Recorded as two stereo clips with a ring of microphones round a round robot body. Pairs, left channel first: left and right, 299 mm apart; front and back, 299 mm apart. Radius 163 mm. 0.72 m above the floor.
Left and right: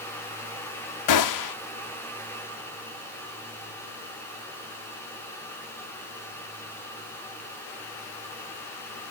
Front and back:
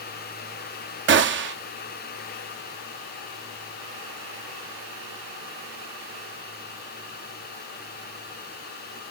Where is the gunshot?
125° left, 0.9 m.